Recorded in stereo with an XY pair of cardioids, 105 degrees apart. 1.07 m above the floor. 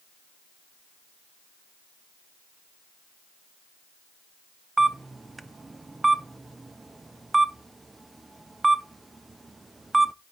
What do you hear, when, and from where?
4.8 s a camera shutter: 20° right, 0.6 m